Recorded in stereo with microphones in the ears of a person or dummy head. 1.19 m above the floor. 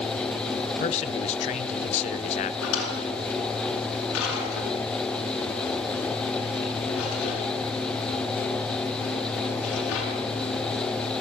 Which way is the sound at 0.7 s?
35° left (ahead or behind).